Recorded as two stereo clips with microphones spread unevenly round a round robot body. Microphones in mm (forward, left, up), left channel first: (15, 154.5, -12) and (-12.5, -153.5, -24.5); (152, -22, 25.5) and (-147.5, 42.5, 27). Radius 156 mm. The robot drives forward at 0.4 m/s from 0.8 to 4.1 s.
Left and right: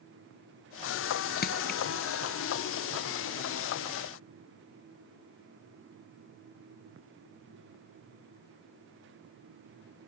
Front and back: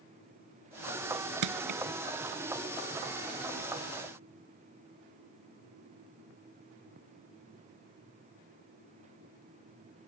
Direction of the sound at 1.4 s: 145° left.